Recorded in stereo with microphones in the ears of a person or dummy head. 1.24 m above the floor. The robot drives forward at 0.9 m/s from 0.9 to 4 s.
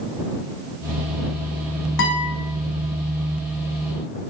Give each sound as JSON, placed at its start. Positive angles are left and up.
{"t": 2.0, "sound": "a guitar", "side_deg": 60, "distance_m": 1.3}